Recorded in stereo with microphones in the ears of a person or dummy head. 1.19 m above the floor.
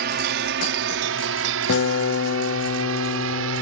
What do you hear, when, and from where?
0.0 s a drone: 50° right (ahead or behind); by 3.6 s 70° right (ahead or behind)
1.7 s a guitar: 50° left (ahead or behind)